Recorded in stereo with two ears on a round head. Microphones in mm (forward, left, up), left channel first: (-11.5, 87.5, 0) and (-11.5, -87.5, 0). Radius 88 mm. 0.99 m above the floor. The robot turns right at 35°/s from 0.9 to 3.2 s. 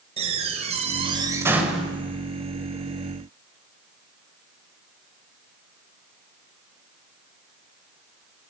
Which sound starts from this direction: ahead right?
A door slam, at 0.2 s.